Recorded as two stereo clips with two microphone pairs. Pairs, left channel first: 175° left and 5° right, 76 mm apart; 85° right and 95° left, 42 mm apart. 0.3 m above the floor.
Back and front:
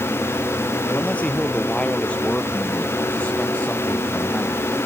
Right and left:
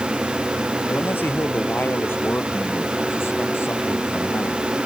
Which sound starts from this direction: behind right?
A man speaking, at 0.9 s.